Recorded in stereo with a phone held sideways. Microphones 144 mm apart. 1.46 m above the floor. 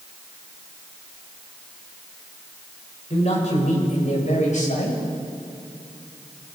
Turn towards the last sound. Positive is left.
turn(degrees=60)  # may be behind; listen again after turning